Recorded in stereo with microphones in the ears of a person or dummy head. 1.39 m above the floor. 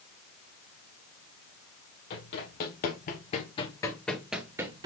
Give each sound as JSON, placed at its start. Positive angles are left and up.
{"t": 2.1, "sound": "running footsteps", "side_deg": 60, "distance_m": 3.0}